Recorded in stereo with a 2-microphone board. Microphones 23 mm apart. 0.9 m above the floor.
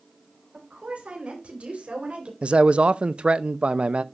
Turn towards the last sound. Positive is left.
turn(degrees=-60)  # may be behind; listen again after turning